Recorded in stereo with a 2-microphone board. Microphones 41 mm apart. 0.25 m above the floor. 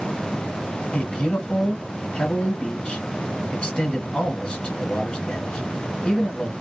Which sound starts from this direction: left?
A man speaking, at 0.9 s.